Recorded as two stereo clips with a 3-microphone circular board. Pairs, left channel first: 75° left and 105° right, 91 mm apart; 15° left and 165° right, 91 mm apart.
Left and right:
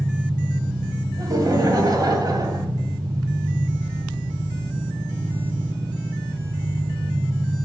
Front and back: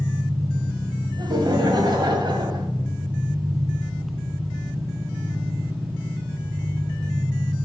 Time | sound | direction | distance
0.0 | an engine running | 75° right | 4 m
1.2 | laughter | 140° right | 1.9 m